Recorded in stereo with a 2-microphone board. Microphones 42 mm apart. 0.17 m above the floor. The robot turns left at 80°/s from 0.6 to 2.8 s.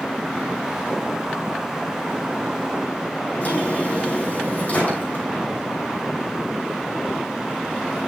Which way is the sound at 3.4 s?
40° left (ahead or behind).